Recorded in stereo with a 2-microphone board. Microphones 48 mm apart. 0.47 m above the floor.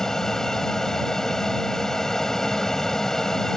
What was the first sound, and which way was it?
An aircraft, 10° left (ahead or behind).